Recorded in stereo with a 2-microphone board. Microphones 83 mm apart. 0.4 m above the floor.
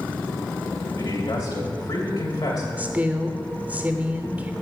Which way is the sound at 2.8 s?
20° right (ahead or behind).